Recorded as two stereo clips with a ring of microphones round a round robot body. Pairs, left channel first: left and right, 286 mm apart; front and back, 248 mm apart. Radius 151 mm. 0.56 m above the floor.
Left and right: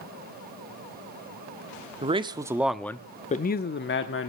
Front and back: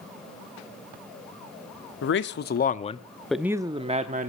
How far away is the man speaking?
About 1.1 m.